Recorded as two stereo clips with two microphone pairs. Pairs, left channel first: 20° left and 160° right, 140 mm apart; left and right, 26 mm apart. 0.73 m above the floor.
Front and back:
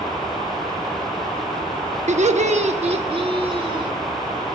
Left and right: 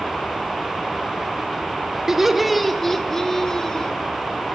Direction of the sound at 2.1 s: 165° right.